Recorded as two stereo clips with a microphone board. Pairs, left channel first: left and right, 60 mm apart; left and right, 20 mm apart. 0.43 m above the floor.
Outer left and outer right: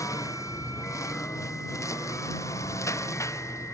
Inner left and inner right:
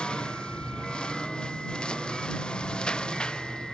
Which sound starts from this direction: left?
A lawn mower, at 0.0 s.